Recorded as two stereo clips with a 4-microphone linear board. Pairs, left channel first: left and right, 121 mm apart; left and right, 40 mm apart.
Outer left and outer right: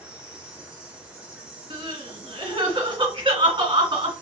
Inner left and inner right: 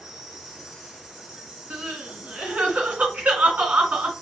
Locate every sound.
0.0 s an insect: 10° right (ahead or behind), 1.2 m
1.7 s crying: 45° right (ahead or behind), 1.7 m